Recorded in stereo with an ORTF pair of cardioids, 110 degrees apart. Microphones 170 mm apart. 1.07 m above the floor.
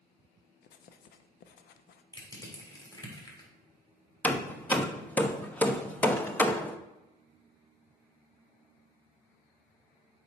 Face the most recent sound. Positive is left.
turn(degrees=10)